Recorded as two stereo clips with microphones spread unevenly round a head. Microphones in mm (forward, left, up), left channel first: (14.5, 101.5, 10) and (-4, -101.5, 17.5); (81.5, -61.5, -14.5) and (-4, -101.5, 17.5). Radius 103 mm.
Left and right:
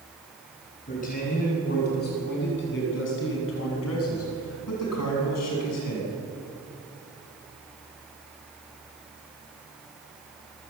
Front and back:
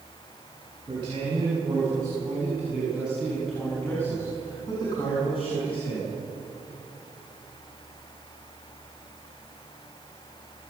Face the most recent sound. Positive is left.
turn(degrees=80)